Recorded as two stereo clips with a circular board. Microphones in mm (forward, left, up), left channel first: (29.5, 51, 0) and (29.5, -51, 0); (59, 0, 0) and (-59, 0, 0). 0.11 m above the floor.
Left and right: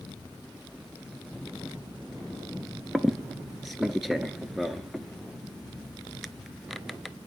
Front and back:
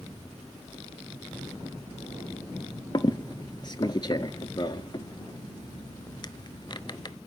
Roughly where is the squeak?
Ahead.